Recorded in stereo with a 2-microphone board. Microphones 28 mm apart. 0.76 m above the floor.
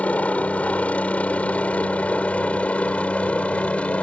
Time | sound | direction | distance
0.0 | a helicopter | 55° left (ahead or behind) | ?